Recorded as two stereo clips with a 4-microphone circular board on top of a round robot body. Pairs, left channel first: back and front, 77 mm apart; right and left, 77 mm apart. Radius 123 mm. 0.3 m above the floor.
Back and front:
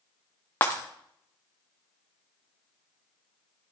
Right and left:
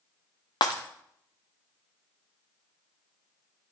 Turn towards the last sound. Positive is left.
turn(degrees=-115)